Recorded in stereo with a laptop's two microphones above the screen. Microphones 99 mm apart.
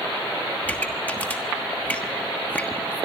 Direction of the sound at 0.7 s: 15° left (ahead or behind).